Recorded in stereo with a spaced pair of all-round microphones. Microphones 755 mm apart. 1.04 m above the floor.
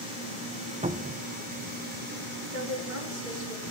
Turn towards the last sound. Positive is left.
turn(degrees=-75)  # may be behind; listen again after turning